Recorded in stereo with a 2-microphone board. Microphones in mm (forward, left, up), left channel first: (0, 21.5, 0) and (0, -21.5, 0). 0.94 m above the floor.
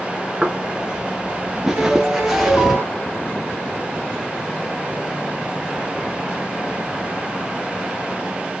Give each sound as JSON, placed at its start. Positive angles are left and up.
{"t": 0.4, "sound": "footsteps", "side_deg": -15, "distance_m": 1.0}
{"t": 1.8, "sound": "a piano", "side_deg": -55, "distance_m": 2.0}